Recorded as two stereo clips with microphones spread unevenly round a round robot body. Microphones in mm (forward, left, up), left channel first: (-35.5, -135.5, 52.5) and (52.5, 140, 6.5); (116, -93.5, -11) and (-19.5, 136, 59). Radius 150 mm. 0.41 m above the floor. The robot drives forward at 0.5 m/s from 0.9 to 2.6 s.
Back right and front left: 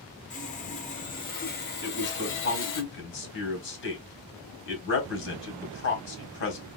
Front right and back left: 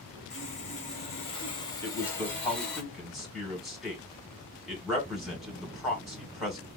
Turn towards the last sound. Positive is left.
turn(degrees=-125)